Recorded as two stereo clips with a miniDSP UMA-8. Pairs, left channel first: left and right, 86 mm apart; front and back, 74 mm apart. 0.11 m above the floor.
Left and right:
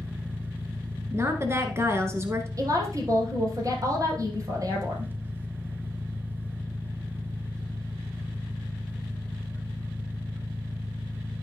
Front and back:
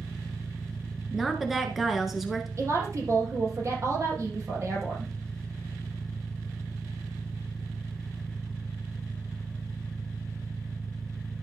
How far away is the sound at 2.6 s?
About 3.5 m.